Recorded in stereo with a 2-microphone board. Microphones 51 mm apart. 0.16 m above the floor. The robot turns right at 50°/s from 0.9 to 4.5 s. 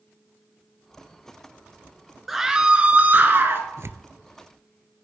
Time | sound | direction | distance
2.3 | a scream | 175° right | 2 m
3.8 | tearing paper | 65° right (ahead or behind) | 0.7 m